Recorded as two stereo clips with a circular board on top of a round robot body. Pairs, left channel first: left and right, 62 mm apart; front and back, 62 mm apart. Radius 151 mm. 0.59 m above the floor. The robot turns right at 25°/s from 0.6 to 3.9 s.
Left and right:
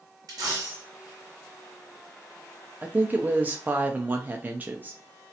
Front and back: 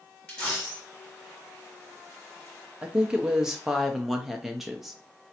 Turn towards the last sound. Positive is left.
turn(degrees=-95)